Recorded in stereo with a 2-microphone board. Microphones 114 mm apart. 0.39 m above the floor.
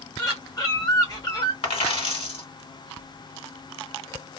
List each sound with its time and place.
0.2 s a bird: 35° left (ahead or behind), 1.1 m
1.6 s a dropped coin: 60° left (ahead or behind), 1.3 m